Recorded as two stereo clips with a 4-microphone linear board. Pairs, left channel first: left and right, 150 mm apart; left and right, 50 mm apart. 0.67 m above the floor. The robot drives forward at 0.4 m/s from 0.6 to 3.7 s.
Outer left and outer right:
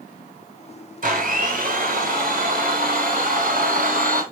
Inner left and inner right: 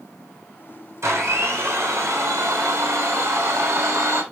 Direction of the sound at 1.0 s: 65° right (ahead or behind).